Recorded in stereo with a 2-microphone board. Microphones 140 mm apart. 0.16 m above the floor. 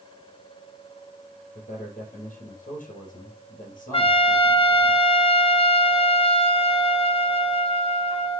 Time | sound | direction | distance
1.6 | a man speaking | 75° left (ahead or behind) | 3.5 m
3.9 | a trumpet | 40° left (ahead or behind) | 0.7 m